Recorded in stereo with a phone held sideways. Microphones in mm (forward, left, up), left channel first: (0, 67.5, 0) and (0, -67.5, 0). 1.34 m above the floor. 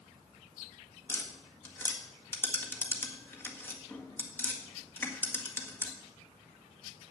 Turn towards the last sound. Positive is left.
turn(degrees=15)  # may be behind; listen again after turning